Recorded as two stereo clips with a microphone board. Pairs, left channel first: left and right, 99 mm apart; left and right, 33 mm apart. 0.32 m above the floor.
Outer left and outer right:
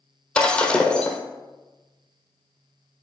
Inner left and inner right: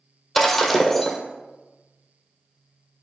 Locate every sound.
0.3 s breaking glass: 10° left (ahead or behind), 1.6 m